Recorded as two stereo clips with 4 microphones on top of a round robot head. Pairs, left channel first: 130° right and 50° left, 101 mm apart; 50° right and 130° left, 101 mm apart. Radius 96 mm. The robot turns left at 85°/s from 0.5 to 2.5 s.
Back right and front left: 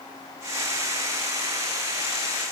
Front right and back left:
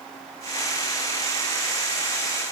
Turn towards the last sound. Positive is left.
No sound to turn to.